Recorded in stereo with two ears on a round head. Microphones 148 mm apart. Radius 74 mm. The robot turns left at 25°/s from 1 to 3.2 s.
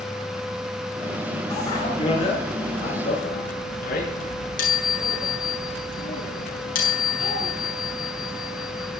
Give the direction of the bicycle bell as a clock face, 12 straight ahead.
7 o'clock.